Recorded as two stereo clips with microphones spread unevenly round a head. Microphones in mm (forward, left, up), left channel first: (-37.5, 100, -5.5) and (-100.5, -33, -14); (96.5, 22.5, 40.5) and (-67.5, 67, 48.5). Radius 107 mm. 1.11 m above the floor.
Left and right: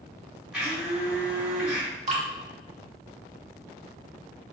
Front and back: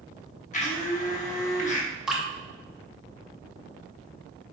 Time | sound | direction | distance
0.5 | a blender | 30° right | 0.9 m
2.1 | dripping | 110° right | 0.9 m